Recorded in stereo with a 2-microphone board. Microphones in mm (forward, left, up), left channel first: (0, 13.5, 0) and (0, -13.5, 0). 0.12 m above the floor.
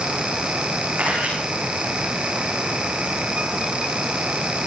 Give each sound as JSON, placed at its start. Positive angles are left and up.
{"t": 1.0, "sound": "a camera shutter", "side_deg": -65, "distance_m": 9.5}